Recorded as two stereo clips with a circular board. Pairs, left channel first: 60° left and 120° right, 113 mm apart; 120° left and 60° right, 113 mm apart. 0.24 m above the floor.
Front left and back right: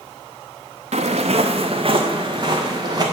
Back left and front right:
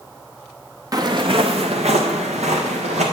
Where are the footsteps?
115° right, 1.1 m; by 3.0 s 65° right, 3 m.